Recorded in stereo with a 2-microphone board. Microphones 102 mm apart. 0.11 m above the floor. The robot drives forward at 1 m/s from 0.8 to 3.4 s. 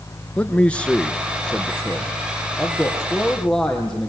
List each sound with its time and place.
0.4 s a man speaking: 10° left (ahead or behind), 1.1 m; by 4.1 s 5° left (ahead or behind), 3 m